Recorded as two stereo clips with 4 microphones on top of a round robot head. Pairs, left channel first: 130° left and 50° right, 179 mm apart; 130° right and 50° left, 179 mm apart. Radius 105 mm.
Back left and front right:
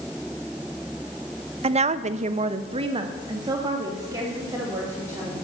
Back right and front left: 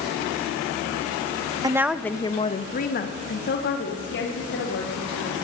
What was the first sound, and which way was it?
A woman speaking, 10° right.